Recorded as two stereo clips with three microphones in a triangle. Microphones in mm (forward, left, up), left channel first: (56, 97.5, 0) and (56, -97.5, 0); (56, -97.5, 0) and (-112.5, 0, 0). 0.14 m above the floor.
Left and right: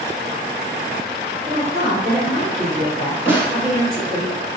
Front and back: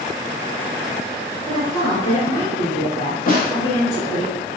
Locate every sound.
1.4 s a woman speaking: 55° right, 1.7 m
3.3 s a snare drum: 15° right, 0.6 m